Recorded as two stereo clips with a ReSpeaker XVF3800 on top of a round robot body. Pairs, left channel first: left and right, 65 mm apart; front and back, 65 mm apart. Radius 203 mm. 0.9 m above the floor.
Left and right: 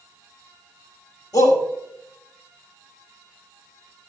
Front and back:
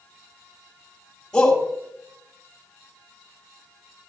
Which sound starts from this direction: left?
A shout, at 1.3 s.